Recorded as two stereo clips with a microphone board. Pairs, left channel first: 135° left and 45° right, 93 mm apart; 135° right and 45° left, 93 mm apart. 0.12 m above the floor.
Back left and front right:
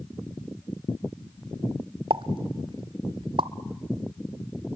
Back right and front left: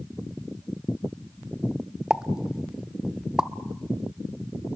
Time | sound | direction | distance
2.1 | a pop | 40° right | 0.6 m